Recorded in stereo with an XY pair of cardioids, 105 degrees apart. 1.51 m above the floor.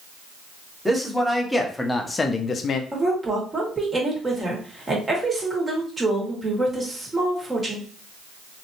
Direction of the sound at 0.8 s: Straight ahead.